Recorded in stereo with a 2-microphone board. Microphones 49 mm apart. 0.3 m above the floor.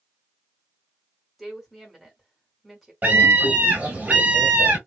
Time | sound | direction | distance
1.4 | a woman speaking | 5° right (ahead or behind) | 1.8 m
3.0 | a scream | 35° right (ahead or behind) | 1.6 m